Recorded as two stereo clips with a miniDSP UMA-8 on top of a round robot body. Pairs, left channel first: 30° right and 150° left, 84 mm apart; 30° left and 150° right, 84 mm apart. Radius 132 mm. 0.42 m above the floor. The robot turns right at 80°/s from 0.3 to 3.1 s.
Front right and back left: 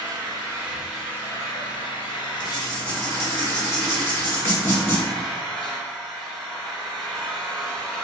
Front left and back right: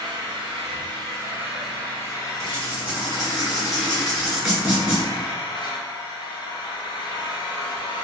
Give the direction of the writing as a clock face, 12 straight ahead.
4 o'clock.